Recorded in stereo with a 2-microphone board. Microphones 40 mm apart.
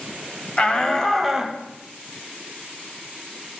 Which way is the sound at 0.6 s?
25° left (ahead or behind).